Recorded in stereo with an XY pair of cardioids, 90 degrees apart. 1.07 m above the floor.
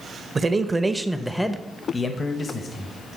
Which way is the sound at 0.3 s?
35° right.